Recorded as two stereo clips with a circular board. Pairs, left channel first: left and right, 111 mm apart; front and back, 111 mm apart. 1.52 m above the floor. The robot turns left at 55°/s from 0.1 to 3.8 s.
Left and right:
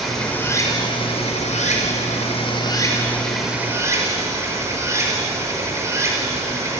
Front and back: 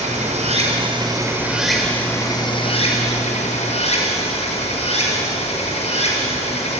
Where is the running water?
Straight behind, 5.5 m; by 6.8 s 25° right, 5.5 m.